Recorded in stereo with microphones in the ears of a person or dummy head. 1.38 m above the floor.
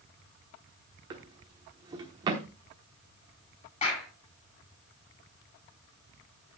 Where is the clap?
35° left (ahead or behind), 7.5 m.